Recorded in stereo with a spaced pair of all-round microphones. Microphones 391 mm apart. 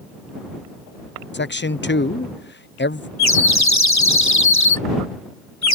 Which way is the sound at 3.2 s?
45° left (ahead or behind).